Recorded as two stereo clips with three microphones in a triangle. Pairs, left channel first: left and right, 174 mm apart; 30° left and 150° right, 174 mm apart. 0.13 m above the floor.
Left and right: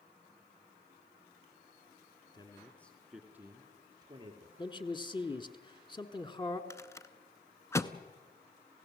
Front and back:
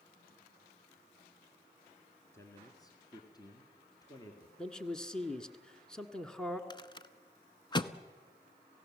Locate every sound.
2.3 s a man speaking: 80° left, 1.6 m; by 4.5 s 35° right, 3 m
4.6 s a man speaking: 110° left, 1.3 m
6.7 s a rattle: 40° left, 0.8 m